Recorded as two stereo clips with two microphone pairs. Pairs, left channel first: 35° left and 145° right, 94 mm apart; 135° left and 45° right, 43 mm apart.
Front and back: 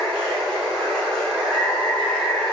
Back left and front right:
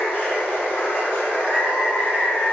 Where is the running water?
115° left, 1.6 m.